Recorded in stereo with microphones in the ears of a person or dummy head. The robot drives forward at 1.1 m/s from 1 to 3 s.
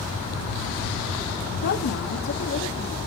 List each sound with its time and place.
1.6 s a woman speaking: 75° left (ahead or behind), 1.8 m; by 3.0 s 40° left (ahead or behind), 2.5 m